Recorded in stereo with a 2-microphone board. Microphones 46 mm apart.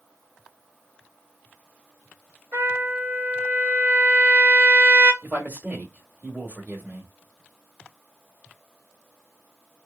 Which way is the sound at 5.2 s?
40° right (ahead or behind).